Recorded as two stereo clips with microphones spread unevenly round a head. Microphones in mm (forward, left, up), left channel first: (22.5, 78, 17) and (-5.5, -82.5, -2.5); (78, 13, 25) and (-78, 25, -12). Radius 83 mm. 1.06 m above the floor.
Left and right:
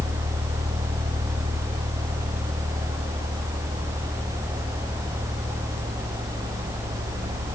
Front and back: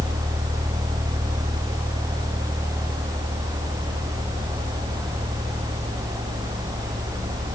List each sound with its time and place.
Only background noise.